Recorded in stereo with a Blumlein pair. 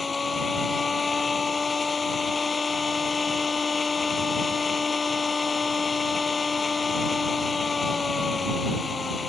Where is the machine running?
15° left.